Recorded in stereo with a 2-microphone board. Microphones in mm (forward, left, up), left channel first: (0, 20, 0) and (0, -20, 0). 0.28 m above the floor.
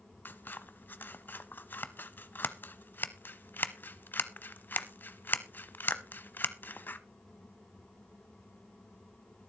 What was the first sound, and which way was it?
Scissors, 55° left (ahead or behind).